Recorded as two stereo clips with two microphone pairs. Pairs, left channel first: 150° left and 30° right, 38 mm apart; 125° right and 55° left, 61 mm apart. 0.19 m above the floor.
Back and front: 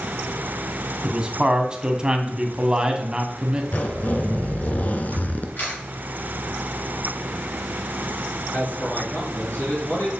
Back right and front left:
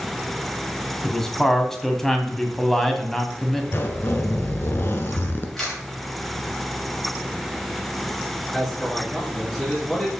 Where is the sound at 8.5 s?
150° left, 3 m.